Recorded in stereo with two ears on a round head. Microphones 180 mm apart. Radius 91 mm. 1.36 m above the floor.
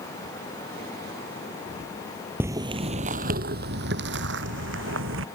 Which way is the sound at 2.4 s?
10° right (ahead or behind).